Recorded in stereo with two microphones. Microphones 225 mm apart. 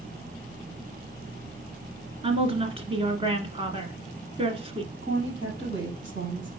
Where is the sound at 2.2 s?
25° right (ahead or behind), 1.2 m.